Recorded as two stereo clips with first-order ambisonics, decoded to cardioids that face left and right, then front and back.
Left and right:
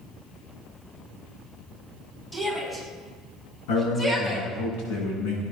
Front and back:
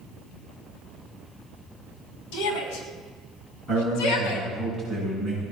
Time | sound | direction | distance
2.3 | a shout | 10° left | 5.5 m
3.7 | a man speaking | 90° left | 7.5 m